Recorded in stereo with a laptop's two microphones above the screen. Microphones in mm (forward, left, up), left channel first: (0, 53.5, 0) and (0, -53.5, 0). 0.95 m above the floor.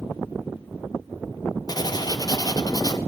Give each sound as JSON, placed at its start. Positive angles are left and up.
{"t": 1.7, "sound": "writing", "side_deg": 40, "distance_m": 0.6}